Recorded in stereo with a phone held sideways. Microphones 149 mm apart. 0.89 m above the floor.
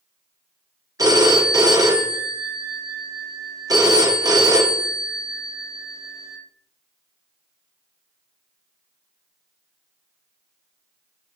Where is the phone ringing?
25° right (ahead or behind), 0.7 m.